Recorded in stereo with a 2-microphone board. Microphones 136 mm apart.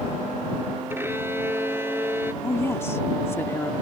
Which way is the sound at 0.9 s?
15° right (ahead or behind).